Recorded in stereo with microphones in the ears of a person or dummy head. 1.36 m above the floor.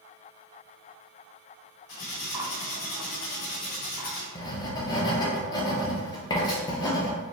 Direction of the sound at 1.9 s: 70° left (ahead or behind).